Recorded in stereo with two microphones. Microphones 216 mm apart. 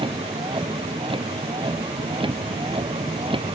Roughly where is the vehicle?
Right.